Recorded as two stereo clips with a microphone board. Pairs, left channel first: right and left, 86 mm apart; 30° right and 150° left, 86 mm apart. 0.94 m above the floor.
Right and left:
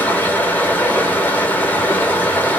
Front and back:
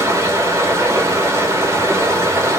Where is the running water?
155° right, 0.7 m.